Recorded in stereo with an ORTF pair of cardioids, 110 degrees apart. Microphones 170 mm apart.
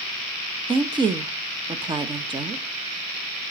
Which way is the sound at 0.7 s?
30° right.